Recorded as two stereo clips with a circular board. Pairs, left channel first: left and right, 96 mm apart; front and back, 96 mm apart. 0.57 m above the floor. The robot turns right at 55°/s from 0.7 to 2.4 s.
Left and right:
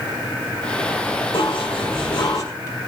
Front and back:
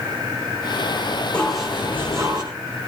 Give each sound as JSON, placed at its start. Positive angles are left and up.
{"t": 1.3, "sound": "dishes clattering", "azimuth_deg": 80, "distance_m": 4.0}